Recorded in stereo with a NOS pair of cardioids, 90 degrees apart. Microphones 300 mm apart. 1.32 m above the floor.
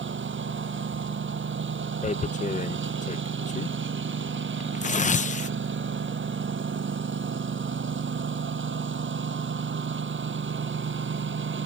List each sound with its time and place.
0.0 s a lawn mower: 40° right
2.0 s tearing paper: 25° left